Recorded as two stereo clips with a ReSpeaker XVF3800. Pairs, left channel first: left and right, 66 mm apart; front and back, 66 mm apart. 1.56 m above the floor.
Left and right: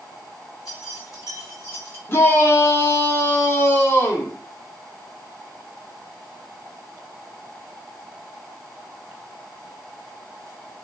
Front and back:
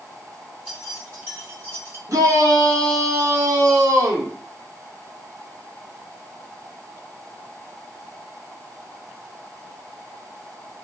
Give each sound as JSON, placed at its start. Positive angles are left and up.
{"t": 0.7, "sound": "keys jangling", "azimuth_deg": 115, "distance_m": 1.7}
{"t": 2.1, "sound": "a shout", "azimuth_deg": 145, "distance_m": 1.0}